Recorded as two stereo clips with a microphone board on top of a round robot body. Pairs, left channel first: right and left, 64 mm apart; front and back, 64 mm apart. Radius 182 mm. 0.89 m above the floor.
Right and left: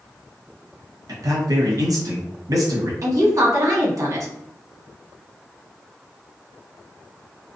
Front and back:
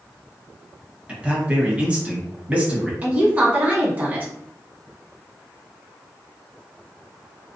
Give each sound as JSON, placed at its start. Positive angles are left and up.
{"t": 1.1, "sound": "a man speaking", "azimuth_deg": 110, "distance_m": 1.1}
{"t": 3.0, "sound": "a woman speaking", "azimuth_deg": 115, "distance_m": 1.4}